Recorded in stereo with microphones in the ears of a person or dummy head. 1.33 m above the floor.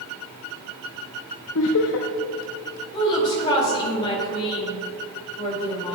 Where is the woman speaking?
30° left (ahead or behind), 2.0 m.